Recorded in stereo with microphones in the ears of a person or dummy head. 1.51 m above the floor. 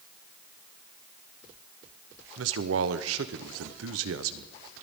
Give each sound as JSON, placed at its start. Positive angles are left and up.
{"t": 2.4, "sound": "a man speaking", "side_deg": -85, "distance_m": 0.8}